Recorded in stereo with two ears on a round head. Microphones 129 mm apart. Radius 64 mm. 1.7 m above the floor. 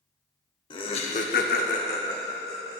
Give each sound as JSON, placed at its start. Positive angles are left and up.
{"t": 0.7, "sound": "laughter", "side_deg": 35, "distance_m": 1.2}